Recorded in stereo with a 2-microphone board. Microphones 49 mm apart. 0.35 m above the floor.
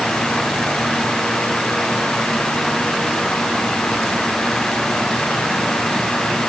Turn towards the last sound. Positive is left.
No sound to turn to.